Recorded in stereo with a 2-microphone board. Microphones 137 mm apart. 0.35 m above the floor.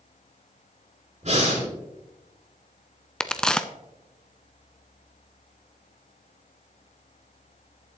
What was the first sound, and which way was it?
Breathing, 55° right (ahead or behind).